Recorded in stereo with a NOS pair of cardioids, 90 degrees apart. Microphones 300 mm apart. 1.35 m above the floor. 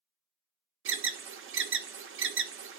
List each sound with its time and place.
0.8 s an alarm: 50° right, 0.5 m